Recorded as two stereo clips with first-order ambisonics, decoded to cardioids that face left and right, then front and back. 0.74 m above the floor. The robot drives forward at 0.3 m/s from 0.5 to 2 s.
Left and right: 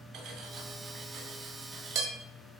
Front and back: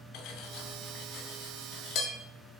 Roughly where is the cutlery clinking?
Ahead right.